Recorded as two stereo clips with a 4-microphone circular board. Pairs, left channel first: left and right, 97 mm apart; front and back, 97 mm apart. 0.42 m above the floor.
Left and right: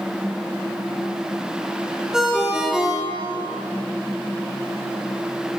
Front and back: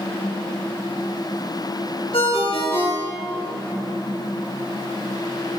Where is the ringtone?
5° right, 3 m.